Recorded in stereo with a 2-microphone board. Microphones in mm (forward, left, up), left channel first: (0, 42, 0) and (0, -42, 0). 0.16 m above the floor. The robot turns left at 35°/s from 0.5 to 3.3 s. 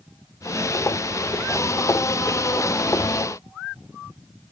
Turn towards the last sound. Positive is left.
No sound to turn to.